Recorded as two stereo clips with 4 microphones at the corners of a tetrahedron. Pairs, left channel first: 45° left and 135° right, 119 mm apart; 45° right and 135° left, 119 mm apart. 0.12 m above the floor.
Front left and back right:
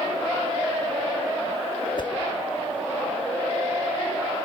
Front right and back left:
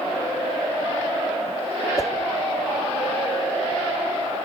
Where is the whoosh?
10° left, 1.2 m.